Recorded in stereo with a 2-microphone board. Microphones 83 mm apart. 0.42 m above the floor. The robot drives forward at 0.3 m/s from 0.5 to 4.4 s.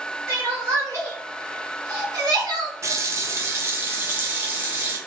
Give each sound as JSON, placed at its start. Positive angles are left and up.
{"t": 0.3, "sound": "crying", "side_deg": -35, "distance_m": 1.4}
{"t": 2.8, "sound": "a running tap", "side_deg": -35, "distance_m": 0.5}